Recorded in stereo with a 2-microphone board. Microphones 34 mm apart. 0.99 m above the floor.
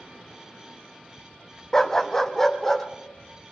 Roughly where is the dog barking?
Centre.